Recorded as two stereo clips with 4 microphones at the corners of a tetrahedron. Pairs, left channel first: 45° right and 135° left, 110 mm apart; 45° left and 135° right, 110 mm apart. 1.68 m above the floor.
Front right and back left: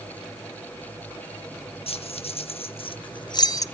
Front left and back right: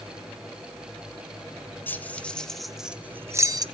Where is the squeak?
No squeak in this recording.